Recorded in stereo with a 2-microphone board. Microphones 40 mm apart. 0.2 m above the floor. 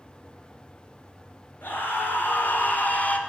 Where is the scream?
60° left (ahead or behind), 3 m; by 3.2 s 35° left (ahead or behind), 1.6 m.